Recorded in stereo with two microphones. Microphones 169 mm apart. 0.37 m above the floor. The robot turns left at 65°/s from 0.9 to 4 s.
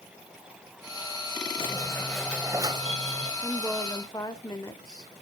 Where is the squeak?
40° left, 1.1 m; by 3.3 s 70° right, 1.1 m.